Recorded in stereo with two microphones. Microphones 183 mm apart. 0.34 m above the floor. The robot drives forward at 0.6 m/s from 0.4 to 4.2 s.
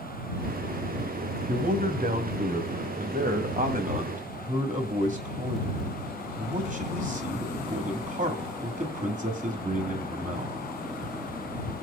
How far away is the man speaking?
About 2 m.